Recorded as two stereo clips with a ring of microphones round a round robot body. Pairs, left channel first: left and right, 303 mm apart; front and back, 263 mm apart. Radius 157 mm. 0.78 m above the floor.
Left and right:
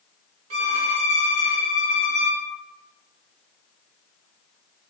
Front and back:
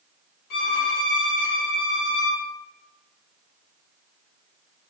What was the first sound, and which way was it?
A violin, 40° right.